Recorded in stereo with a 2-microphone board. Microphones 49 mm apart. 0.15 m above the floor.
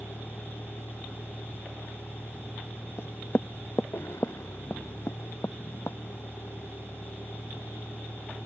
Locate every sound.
0.0 s a vehicle: 80° left
3.0 s knocking: 60° left (ahead or behind)